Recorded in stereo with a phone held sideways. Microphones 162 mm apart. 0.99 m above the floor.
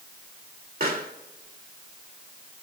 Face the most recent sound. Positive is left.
turn(degrees=-70)  # may be behind; listen again after turning